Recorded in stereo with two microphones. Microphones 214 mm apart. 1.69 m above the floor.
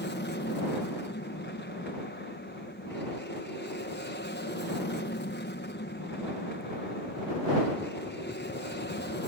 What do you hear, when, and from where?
0.0 s an aircraft: 55° left (ahead or behind)